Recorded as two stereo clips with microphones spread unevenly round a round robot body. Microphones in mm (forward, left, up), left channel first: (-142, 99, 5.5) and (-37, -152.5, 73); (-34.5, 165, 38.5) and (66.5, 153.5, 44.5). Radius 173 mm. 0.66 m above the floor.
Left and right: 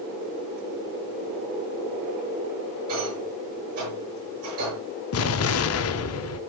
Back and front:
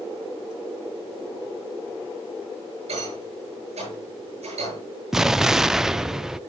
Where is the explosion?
80° left, 0.7 m.